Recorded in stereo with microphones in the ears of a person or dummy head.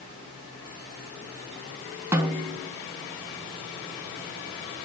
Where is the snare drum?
10° right (ahead or behind), 1.1 m.